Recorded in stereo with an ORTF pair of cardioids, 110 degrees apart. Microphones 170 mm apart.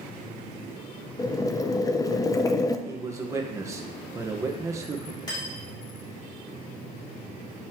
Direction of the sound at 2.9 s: 20° right.